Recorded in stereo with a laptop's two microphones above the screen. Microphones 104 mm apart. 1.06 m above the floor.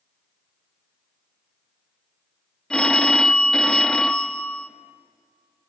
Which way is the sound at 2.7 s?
5° left (ahead or behind).